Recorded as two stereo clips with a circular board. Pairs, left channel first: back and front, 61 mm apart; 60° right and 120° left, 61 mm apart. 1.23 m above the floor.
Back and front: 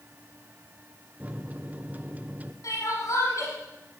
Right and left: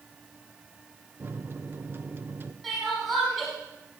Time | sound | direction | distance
1.2 | a microwave | 65° left | 0.8 m
2.6 | crying | 150° right | 6 m